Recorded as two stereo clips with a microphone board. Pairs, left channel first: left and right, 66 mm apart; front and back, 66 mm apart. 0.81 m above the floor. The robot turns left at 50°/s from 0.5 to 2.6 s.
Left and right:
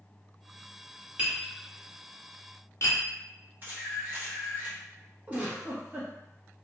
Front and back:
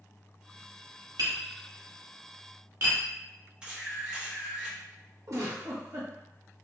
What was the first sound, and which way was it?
Tapping, 160° right.